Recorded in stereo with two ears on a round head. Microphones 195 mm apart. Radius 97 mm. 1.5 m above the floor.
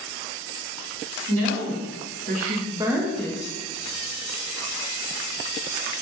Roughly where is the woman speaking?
Right.